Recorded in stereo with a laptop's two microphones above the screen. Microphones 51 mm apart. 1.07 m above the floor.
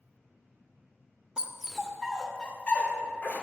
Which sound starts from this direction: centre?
A dog barking, at 1.4 s.